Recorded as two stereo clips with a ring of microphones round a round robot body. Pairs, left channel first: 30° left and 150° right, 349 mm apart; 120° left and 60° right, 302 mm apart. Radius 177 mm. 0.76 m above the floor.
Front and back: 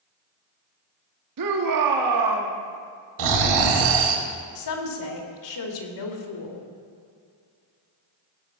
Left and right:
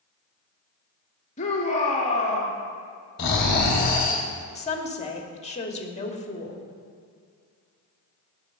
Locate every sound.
1.4 s a shout: 170° right, 1.7 m
3.2 s snoring: 175° right, 1.7 m
4.5 s a woman speaking: 55° left, 2 m